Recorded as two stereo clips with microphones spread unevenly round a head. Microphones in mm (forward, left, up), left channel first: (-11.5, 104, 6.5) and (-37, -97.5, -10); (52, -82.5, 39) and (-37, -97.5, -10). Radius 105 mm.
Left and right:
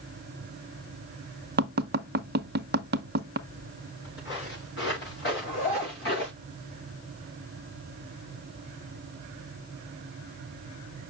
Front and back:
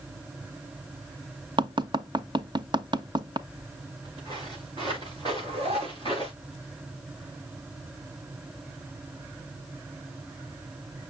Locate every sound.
1.6 s tapping: 140° right, 0.8 m
3.5 s footsteps: 115° left, 6.5 m
5.3 s a zipper: 135° left, 6 m